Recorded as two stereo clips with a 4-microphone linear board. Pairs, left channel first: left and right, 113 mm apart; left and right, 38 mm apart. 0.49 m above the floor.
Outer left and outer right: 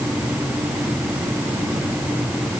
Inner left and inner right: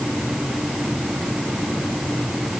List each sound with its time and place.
Only background noise.